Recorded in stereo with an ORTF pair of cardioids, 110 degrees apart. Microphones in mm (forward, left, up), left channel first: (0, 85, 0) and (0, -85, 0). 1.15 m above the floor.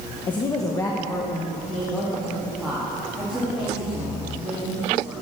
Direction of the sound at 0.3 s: 30° left.